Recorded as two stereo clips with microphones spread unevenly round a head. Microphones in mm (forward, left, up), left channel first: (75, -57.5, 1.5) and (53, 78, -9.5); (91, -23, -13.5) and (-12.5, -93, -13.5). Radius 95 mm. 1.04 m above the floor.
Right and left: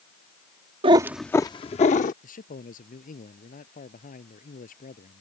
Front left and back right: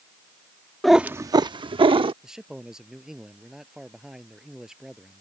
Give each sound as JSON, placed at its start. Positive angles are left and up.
{"t": 0.8, "sound": "a cat meowing", "azimuth_deg": 120}
{"t": 2.2, "sound": "a man speaking", "azimuth_deg": -60}